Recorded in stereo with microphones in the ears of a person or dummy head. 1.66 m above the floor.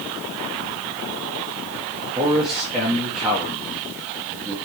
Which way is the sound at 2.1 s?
Centre (ahead or behind).